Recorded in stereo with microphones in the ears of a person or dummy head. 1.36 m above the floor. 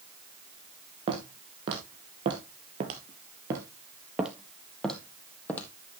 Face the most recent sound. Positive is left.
turn(degrees=10)  # may be behind; listen again after turning